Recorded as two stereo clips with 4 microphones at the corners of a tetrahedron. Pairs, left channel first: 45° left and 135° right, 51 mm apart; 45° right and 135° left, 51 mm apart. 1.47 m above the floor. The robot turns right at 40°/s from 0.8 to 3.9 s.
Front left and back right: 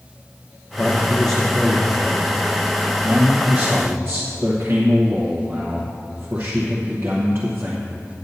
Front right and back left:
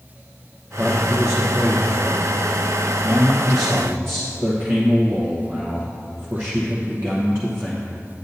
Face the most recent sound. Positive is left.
turn(degrees=175)